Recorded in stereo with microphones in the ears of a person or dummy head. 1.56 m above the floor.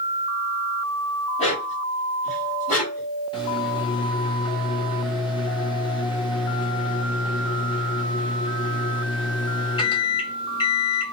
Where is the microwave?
35° left (ahead or behind), 2.0 m.